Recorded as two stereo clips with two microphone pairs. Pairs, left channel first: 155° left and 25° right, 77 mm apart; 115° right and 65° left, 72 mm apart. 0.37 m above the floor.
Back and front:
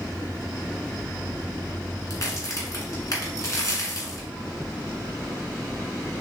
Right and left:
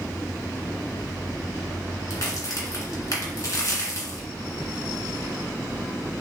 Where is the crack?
160° right, 1.6 m.